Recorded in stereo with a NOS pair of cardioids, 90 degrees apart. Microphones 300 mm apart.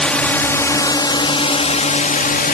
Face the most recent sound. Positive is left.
turn(degrees=30)